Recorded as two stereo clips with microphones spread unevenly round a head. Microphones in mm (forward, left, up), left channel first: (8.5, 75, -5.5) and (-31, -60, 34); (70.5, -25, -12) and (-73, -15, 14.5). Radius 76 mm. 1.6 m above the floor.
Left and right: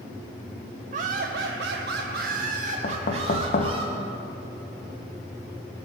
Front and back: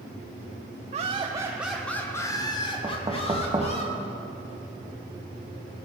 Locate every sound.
0.9 s laughter: 140° right, 0.6 m; by 3.8 s 50° right, 1.6 m
2.8 s knocking: 110° left, 0.8 m